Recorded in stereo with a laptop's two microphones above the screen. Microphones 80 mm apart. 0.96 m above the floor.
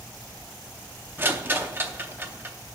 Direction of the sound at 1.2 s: 25° right (ahead or behind).